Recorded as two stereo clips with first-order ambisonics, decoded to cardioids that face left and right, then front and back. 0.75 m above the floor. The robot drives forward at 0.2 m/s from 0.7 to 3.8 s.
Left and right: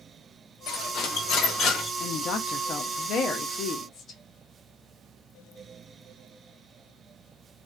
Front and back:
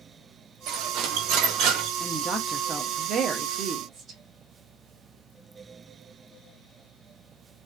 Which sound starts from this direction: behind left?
Cutlery clinking, at 0.7 s.